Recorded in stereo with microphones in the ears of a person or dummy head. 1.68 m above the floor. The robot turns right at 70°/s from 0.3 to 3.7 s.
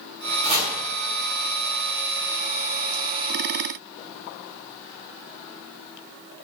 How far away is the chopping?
About 3.5 m.